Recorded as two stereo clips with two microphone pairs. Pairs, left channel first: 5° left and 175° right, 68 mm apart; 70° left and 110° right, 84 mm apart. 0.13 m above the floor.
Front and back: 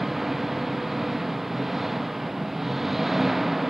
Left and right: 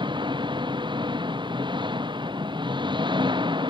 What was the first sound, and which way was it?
An engine running, 90° right.